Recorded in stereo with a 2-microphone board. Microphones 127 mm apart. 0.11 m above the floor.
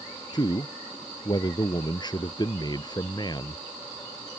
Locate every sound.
0.3 s a man speaking: 35° left (ahead or behind)